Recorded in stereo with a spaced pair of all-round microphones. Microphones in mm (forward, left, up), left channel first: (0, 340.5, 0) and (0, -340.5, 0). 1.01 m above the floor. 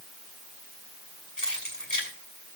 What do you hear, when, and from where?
1.4 s keys jangling: 65° left (ahead or behind), 6.5 m